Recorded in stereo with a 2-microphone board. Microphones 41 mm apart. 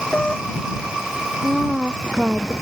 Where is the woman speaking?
15° right (ahead or behind).